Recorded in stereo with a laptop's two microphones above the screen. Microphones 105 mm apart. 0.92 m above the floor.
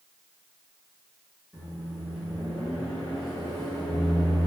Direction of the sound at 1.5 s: Centre (ahead or behind).